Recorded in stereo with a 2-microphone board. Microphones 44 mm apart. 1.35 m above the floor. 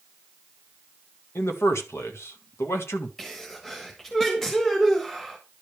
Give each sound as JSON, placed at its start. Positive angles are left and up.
{"t": 1.4, "sound": "a man speaking", "side_deg": 80, "distance_m": 1.6}
{"t": 3.2, "sound": "a sneeze", "side_deg": 10, "distance_m": 1.4}